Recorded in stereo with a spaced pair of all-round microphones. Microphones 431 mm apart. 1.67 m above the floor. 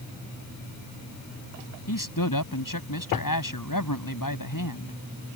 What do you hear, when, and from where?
1.9 s a man speaking: 50° left (ahead or behind)